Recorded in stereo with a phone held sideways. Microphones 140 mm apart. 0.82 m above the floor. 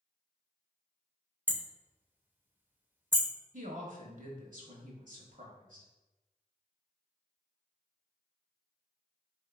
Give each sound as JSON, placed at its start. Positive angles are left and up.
{"t": 1.5, "sound": "hammering", "side_deg": -15, "distance_m": 0.5}
{"t": 3.5, "sound": "a woman speaking", "side_deg": -70, "distance_m": 1.2}